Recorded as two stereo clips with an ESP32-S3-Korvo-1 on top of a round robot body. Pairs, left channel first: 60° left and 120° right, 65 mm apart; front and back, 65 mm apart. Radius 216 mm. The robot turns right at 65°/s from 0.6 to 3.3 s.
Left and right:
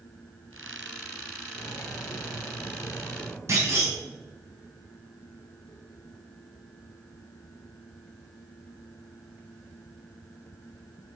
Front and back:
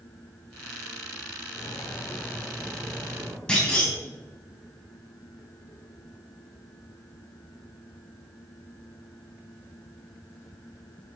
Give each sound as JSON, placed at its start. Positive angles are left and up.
{"t": 1.6, "sound": "cutlery clinking", "azimuth_deg": 20, "distance_m": 1.7}
{"t": 3.5, "sound": "a clunk", "azimuth_deg": -80, "distance_m": 4.0}